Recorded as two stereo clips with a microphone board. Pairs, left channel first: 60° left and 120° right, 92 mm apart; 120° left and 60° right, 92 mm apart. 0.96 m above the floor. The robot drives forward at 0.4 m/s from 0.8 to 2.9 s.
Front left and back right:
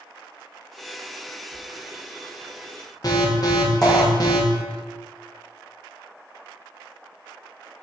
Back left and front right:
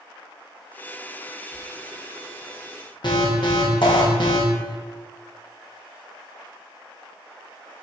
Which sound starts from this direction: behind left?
A squeak, at 1.5 s.